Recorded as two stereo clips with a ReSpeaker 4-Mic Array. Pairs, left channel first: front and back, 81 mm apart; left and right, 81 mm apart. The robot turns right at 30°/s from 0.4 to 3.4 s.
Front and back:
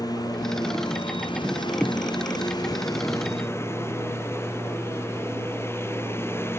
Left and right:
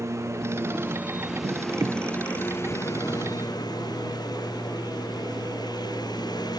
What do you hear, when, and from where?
0.0 s a lawn mower: 35° right; by 6.6 s 60° left